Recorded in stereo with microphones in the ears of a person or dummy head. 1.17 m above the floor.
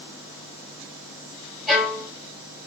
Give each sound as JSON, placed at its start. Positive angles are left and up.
{"t": 1.7, "sound": "a violin", "side_deg": -5, "distance_m": 3.0}